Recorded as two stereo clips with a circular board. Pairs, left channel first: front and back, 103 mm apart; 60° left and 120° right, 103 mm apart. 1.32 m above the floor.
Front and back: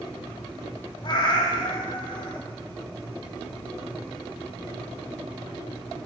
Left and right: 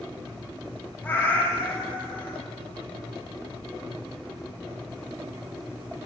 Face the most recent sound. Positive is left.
turn(degrees=-5)